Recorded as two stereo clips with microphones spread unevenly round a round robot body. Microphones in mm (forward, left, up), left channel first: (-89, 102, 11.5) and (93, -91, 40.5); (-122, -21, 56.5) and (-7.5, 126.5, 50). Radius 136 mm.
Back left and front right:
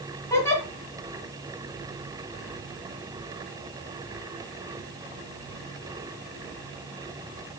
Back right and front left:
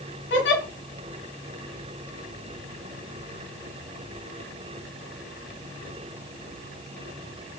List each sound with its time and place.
0.3 s a giggle: 145° right, 2 m